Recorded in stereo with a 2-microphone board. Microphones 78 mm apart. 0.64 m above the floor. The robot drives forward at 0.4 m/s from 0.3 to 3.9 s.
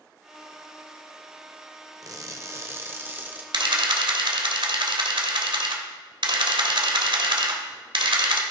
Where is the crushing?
50° right (ahead or behind), 0.6 m; by 3.4 s 25° right (ahead or behind), 1.0 m.